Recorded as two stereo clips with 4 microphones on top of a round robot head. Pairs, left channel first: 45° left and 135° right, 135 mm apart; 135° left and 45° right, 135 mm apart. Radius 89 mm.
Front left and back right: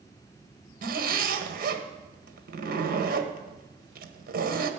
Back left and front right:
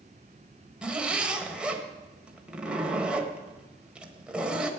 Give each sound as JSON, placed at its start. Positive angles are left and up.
{"t": 0.8, "sound": "a zipper", "azimuth_deg": -125, "distance_m": 1.5}